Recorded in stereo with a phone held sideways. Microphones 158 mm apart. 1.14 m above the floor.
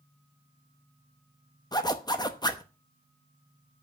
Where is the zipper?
25° left (ahead or behind), 0.9 m.